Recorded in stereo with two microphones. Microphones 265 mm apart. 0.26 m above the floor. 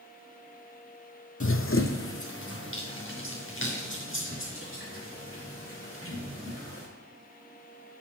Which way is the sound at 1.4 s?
55° left (ahead or behind).